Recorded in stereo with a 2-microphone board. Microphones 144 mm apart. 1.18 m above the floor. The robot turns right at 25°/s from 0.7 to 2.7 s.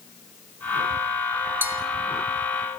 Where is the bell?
15° right (ahead or behind), 2.5 m; by 1.8 s 10° right (ahead or behind), 2.5 m.